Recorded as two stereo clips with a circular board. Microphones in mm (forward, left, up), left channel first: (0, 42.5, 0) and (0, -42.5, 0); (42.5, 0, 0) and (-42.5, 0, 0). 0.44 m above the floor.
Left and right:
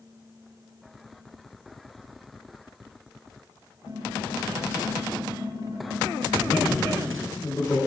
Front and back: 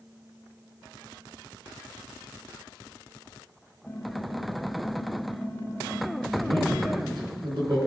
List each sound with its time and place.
3.9 s typing on a keyboard: 55° right, 2 m
6.3 s a man speaking: 150° left, 4 m